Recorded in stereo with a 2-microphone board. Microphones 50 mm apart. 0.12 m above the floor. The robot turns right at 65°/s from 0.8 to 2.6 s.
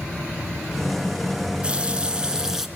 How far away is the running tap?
About 1.0 m.